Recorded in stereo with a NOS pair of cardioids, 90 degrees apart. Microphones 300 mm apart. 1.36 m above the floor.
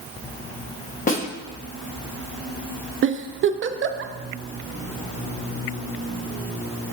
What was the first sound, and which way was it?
A snare drum, 30° left.